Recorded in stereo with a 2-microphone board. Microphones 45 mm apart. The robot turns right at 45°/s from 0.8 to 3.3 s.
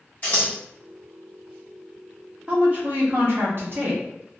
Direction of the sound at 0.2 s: 35° left (ahead or behind).